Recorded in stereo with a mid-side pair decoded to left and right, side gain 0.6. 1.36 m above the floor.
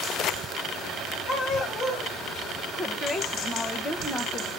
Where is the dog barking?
45° left, 3.5 m.